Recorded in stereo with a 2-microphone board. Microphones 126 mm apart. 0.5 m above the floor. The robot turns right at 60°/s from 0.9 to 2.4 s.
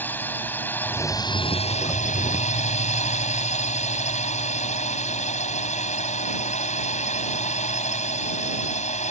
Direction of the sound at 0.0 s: 15° left.